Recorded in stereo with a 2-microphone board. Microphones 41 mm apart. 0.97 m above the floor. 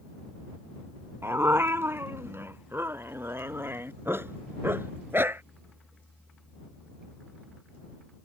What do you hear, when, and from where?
1.2 s a dog barking: 80° right; by 5.4 s 65° right (ahead or behind)